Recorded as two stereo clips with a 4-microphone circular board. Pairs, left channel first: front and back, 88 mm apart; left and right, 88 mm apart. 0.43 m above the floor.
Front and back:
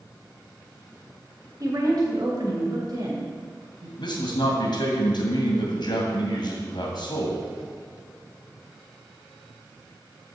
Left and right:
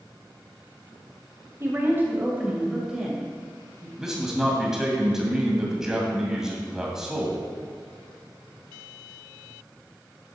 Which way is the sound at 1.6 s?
145° right.